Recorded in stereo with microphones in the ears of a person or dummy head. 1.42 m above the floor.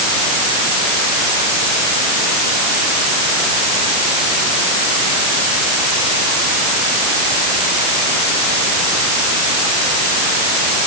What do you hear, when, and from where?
Only background noise.